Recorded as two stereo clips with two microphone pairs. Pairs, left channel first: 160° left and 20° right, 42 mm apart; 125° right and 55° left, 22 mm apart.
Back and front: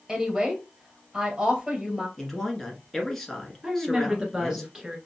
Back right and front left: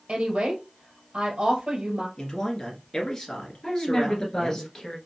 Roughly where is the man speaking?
Behind right.